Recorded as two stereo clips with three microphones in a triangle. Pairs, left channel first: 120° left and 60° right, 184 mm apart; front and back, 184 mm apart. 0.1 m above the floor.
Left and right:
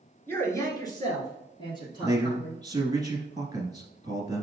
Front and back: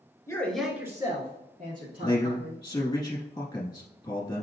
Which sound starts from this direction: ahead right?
A man speaking, at 2.0 s.